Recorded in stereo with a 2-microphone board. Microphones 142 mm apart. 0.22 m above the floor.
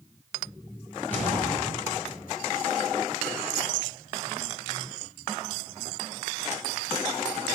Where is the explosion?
15° left (ahead or behind), 4.5 m.